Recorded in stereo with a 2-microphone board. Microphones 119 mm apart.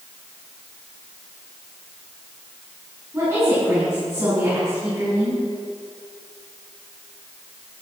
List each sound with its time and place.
3.1 s a woman speaking: 20° right (ahead or behind), 7 m